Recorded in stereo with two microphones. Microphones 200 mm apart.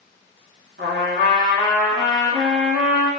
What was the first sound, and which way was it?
A trumpet, 80° right.